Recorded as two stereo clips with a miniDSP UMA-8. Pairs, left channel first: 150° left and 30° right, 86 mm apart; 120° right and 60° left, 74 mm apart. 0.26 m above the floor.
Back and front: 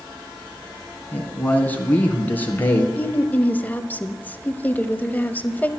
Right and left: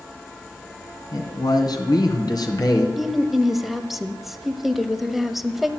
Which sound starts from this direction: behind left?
A woman speaking, at 3.0 s.